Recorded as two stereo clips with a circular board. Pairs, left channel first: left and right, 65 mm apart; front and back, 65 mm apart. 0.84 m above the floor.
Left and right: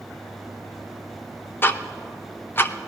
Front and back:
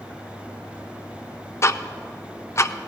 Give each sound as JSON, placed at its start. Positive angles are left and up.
{"t": 1.6, "sound": "ticking", "azimuth_deg": 40, "distance_m": 0.6}